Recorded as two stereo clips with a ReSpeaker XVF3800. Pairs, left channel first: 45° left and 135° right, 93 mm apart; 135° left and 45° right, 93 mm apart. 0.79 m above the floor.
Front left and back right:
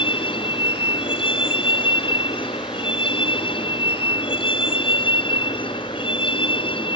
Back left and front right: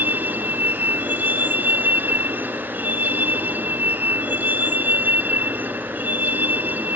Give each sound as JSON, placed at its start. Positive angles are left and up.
{"t": 0.0, "sound": "a vehicle", "azimuth_deg": 25}